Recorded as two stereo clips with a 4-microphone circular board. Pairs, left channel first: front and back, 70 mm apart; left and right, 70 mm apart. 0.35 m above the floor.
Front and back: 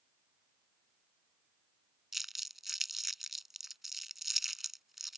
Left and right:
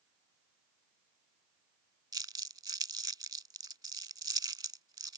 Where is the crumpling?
90° right.